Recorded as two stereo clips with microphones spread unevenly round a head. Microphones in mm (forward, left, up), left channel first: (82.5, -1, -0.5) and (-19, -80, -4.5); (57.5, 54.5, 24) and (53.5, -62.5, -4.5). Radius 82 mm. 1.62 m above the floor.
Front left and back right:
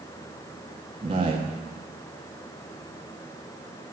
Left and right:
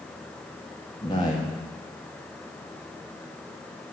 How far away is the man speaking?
About 1.5 m.